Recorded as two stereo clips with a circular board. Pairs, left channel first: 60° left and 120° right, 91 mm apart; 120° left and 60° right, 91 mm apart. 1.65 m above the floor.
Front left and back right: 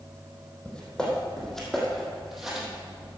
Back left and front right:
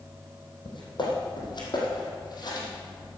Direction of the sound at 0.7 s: 135° left.